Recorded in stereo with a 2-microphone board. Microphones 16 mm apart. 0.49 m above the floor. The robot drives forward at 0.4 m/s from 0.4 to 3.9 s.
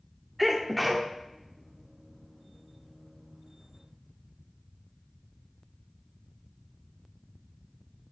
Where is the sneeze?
5° right (ahead or behind), 0.8 m.